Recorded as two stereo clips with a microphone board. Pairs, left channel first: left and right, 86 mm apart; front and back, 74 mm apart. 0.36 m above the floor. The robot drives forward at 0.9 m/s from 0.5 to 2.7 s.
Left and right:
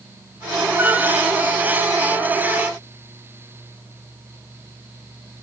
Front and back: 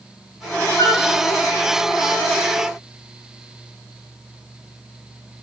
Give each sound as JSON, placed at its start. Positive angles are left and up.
{"t": 0.8, "sound": "a flute", "azimuth_deg": -30, "distance_m": 2.5}